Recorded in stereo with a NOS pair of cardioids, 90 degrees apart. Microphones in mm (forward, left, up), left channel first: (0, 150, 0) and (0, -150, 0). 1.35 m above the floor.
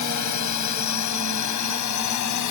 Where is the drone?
70° left.